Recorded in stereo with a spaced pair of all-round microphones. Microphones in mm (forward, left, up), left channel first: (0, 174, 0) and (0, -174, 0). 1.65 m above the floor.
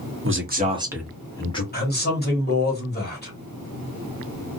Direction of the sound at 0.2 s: 40° right (ahead or behind).